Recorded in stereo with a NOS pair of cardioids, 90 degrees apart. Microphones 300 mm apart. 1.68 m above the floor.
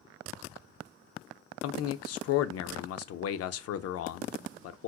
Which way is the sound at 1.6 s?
60° left.